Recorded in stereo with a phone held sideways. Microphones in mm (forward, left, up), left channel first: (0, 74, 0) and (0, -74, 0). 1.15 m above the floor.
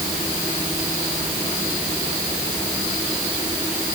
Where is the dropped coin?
I don't hear a dropped coin.